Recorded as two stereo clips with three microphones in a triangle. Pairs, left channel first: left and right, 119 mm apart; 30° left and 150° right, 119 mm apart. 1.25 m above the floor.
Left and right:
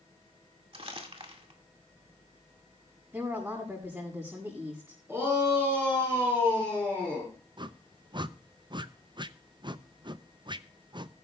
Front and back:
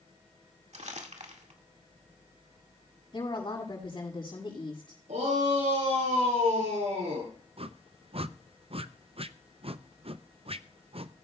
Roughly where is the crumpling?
Behind right.